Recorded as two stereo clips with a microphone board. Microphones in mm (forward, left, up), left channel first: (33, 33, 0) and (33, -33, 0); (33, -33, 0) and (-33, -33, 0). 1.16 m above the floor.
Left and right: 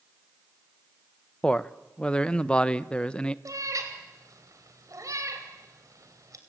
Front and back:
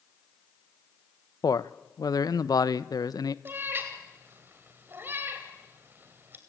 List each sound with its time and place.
1.4 s a man speaking: 15° left, 0.8 m
3.5 s a cat meowing: 120° right, 2.5 m